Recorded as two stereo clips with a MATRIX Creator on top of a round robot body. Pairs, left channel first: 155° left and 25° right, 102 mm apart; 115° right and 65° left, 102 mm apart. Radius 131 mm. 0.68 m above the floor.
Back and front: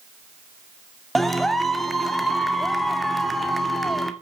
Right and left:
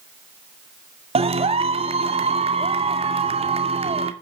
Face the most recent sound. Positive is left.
turn(degrees=70)